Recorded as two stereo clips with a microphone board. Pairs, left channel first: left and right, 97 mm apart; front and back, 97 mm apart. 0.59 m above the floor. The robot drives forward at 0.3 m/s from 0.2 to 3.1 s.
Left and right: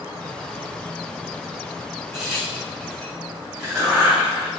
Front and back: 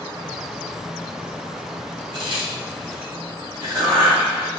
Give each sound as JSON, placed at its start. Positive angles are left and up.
{"t": 2.1, "sound": "a crack", "azimuth_deg": -175, "distance_m": 1.4}